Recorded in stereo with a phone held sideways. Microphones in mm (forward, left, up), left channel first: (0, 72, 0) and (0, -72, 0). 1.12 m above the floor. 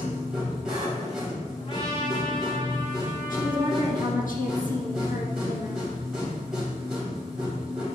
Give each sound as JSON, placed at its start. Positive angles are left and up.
{"t": 0.0, "sound": "a machine running", "side_deg": -5, "distance_m": 3.0}
{"t": 1.6, "sound": "a trumpet", "side_deg": 40, "distance_m": 1.5}
{"t": 3.3, "sound": "a woman speaking", "side_deg": 70, "distance_m": 1.6}